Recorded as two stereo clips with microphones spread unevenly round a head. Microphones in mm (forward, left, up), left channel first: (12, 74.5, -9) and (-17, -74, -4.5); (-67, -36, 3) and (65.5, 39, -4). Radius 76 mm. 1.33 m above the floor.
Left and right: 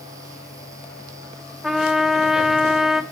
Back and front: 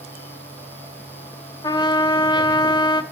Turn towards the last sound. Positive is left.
turn(degrees=175)